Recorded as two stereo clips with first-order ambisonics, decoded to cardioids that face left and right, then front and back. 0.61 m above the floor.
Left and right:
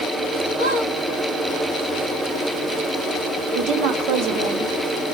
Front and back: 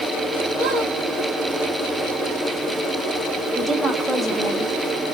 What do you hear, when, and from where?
0.6 s a squeak: 135° right, 2.5 m
3.5 s a woman speaking: 100° right, 1.0 m